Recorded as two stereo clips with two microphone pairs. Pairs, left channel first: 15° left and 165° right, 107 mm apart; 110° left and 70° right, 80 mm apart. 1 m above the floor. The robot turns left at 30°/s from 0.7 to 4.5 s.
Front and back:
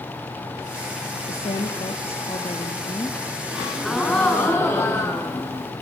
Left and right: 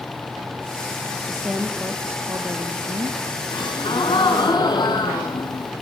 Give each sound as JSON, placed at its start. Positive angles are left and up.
{"t": 1.3, "sound": "a woman speaking", "azimuth_deg": 15, "distance_m": 2.0}
{"t": 3.5, "sound": "a gasp", "azimuth_deg": 115, "distance_m": 5.0}